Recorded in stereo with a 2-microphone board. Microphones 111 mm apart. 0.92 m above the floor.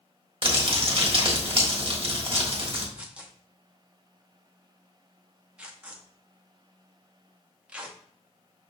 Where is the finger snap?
No finger snap in this recording.